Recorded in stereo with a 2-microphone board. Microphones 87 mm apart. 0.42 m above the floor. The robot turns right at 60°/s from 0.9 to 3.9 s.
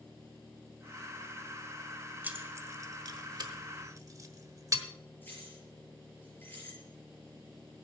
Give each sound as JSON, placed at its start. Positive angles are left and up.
{"t": 2.2, "sound": "keys jangling", "side_deg": -20, "distance_m": 1.2}
{"t": 5.2, "sound": "keys jangling", "side_deg": 20, "distance_m": 6.0}